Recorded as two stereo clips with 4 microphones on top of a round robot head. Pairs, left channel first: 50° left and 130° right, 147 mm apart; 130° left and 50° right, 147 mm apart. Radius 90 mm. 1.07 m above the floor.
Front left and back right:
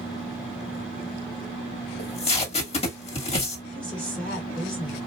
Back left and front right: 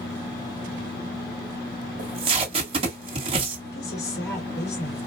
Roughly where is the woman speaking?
Behind left.